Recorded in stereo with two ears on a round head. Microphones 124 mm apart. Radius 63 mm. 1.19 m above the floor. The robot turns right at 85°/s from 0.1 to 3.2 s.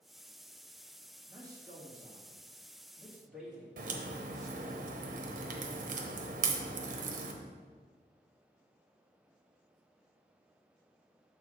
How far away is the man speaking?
About 1.8 m.